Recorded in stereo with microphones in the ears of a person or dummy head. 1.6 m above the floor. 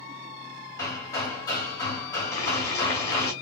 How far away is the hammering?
About 2.5 m.